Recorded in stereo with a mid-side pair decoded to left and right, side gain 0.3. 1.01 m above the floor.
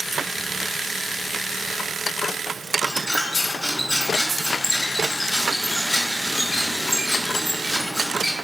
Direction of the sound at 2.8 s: 15° left.